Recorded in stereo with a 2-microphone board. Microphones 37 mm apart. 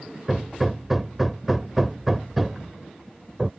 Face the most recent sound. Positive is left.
turn(degrees=-5)  # may be behind; listen again after turning